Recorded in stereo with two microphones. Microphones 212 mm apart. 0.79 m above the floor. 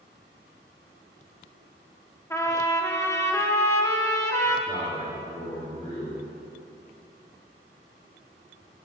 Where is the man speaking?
25° left (ahead or behind), 1.7 m.